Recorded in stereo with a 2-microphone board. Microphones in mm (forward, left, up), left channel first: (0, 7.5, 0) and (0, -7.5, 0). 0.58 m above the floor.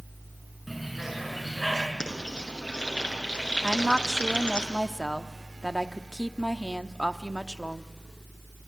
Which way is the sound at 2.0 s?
75° left (ahead or behind).